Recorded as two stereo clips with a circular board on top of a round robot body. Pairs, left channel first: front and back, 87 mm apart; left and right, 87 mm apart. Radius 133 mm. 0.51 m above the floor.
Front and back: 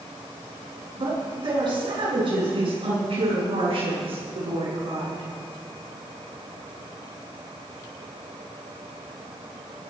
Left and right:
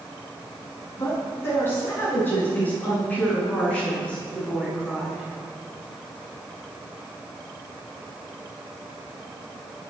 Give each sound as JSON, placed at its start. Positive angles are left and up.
{"t": 0.9, "sound": "a woman speaking", "azimuth_deg": 150, "distance_m": 7.0}